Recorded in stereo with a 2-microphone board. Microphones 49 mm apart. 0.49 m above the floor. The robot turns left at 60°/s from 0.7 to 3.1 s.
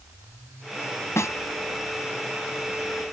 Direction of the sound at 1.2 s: 75° left (ahead or behind).